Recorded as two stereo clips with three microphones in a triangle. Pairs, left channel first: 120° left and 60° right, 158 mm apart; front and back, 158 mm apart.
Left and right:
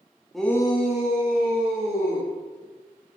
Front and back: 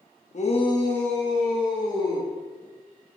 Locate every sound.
0.3 s a shout: 30° left, 1.1 m; by 2.3 s 110° left, 3 m